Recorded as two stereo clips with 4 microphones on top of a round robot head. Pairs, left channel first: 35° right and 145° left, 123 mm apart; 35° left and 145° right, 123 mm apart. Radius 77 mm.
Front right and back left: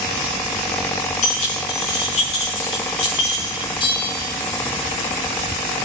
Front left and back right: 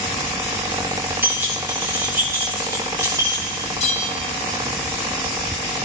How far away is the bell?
About 2.5 m.